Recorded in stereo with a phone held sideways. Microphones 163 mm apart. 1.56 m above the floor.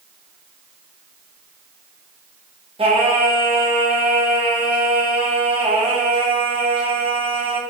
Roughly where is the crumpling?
I don't hear crumpling.